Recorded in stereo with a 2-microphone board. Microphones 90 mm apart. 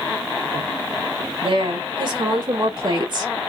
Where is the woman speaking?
70° right (ahead or behind), 2 m; by 3.3 s 45° right (ahead or behind), 0.8 m.